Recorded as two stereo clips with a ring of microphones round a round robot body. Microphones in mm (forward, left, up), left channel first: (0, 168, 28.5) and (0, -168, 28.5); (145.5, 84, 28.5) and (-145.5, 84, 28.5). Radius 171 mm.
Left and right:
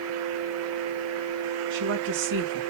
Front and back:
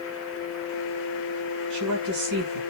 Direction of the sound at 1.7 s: 145° right.